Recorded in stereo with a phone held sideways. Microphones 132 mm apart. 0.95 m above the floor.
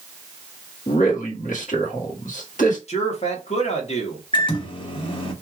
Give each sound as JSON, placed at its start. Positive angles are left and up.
{"t": 0.9, "sound": "a man speaking", "side_deg": 70, "distance_m": 1.6}
{"t": 2.9, "sound": "a man speaking", "side_deg": 55, "distance_m": 1.4}
{"t": 4.3, "sound": "a microwave", "side_deg": 40, "distance_m": 1.0}